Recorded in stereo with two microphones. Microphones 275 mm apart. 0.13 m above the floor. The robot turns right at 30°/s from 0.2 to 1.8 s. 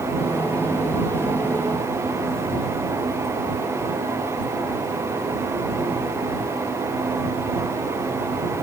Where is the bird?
No bird in this recording.